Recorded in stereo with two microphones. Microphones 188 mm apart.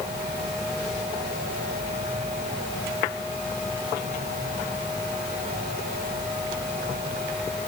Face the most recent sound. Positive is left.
No sound to turn to.